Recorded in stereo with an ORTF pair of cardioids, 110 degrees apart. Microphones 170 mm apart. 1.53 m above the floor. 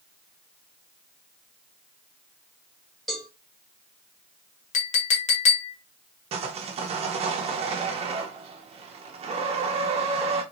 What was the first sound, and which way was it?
A cowbell, straight ahead.